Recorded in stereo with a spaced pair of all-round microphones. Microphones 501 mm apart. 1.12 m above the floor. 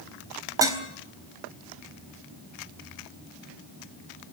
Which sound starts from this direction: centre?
Dishes clattering, at 0.6 s.